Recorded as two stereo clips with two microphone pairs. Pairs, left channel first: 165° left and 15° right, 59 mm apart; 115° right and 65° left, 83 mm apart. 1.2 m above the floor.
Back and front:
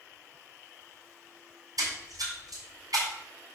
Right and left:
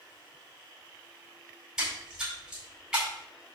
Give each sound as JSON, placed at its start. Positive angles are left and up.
{"t": 1.8, "sound": "a splash", "azimuth_deg": -20, "distance_m": 4.5}